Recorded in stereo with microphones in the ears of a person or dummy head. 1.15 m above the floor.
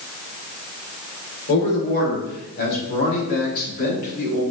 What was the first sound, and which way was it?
A man speaking, 60° left (ahead or behind).